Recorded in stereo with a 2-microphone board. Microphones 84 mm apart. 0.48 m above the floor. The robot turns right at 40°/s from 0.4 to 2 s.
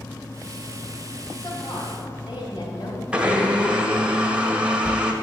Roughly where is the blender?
Centre.